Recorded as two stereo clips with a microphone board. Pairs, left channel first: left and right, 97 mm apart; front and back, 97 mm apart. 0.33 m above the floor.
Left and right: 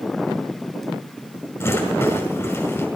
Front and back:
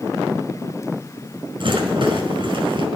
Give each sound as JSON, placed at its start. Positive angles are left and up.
{"t": 1.6, "sound": "a rattle", "azimuth_deg": 155, "distance_m": 5.0}